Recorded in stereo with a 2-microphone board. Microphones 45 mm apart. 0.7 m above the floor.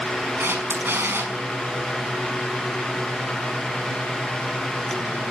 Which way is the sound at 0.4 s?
60° right (ahead or behind).